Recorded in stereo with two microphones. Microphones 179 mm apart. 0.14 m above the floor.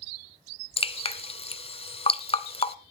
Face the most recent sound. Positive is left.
turn(degrees=35)  # may be behind; listen again after turning